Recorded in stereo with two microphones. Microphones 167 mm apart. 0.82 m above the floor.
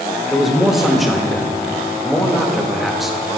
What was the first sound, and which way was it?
A man speaking, centre (ahead or behind).